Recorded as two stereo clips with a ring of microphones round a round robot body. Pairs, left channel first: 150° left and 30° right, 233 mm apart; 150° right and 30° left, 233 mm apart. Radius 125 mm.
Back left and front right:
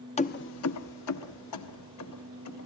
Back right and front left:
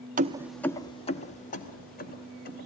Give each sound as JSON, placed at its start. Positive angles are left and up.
{"t": 0.2, "sound": "keys jangling", "azimuth_deg": 85, "distance_m": 0.6}